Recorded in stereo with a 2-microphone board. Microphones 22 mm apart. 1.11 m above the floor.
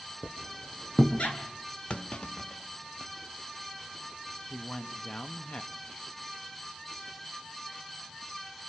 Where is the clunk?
55° left (ahead or behind), 0.7 m.